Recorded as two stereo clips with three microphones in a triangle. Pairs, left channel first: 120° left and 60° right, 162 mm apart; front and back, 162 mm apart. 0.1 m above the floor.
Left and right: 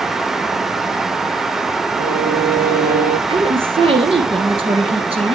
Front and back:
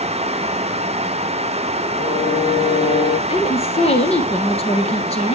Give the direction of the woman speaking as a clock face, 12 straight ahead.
1 o'clock.